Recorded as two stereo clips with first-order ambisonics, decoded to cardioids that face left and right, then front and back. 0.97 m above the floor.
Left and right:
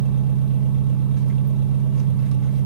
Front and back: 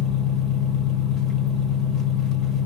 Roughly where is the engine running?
Ahead right.